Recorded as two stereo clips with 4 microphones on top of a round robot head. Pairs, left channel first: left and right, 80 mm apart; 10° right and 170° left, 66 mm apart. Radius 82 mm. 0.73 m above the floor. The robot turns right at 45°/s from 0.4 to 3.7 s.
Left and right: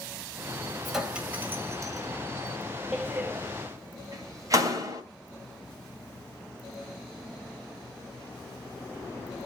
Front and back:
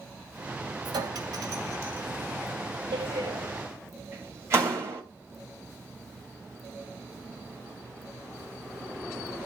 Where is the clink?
Straight behind, 2.5 m; by 2.1 s 125° right, 2.5 m.